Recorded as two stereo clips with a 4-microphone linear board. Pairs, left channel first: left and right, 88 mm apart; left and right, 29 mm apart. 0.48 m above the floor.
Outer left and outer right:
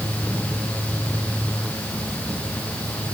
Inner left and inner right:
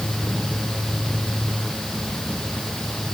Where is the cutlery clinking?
I don't hear cutlery clinking.